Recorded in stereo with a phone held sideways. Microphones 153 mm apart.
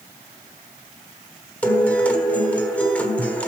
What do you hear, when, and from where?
1.6 s a guitar: 10° left (ahead or behind), 1.4 m